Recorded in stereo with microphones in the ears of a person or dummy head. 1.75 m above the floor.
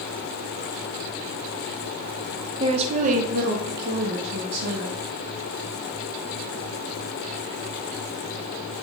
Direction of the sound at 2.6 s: 30° right (ahead or behind).